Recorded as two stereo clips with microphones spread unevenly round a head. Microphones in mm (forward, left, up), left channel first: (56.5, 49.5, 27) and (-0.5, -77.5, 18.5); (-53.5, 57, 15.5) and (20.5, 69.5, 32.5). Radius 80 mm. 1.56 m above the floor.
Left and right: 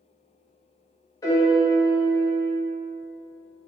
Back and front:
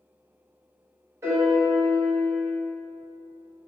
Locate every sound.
1.2 s a piano: 10° left, 0.8 m